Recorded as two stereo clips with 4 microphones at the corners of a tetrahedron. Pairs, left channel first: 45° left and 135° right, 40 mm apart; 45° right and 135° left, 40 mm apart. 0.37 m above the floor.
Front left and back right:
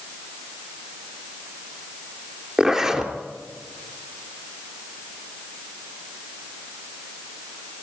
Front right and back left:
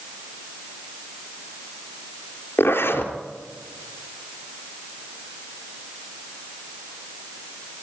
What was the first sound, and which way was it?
A zipper, 65° right.